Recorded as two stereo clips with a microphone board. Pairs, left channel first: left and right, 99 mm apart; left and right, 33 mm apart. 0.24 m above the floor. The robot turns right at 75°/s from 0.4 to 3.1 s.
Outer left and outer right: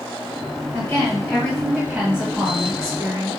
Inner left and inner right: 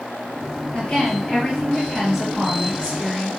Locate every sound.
0.7 s a woman speaking: 100° left, 1.5 m; by 3.4 s 85° right, 1.5 m